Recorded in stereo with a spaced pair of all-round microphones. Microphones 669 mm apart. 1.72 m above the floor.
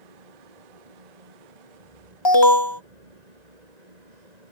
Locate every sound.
0.0 s a fan: 80° right
2.2 s an alarm: 40° left (ahead or behind)